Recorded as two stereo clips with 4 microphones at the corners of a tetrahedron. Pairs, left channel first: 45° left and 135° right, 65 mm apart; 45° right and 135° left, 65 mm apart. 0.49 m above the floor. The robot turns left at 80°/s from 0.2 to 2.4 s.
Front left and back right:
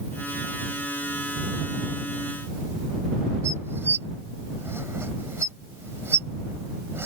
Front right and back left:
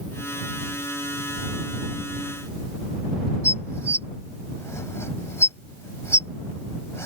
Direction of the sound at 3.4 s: 85° right.